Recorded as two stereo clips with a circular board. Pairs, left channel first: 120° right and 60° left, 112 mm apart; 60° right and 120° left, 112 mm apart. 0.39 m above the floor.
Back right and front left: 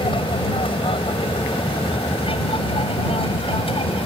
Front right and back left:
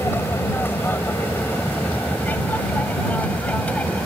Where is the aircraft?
125° right; by 4.1 s 135° right.